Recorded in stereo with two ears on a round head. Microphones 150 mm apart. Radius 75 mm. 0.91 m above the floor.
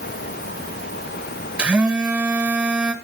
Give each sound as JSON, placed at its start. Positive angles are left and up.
{"t": 1.6, "sound": "a phone buzzing", "side_deg": -5, "distance_m": 1.8}